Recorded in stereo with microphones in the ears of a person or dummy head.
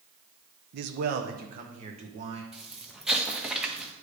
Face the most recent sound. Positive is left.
turn(degrees=-5)  # may be behind; listen again after turning